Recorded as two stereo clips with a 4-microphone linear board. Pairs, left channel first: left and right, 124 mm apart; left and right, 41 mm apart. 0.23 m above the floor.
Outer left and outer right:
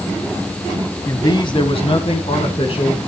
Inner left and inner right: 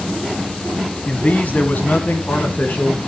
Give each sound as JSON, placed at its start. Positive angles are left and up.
{"t": 1.1, "sound": "a man speaking", "side_deg": 30, "distance_m": 1.8}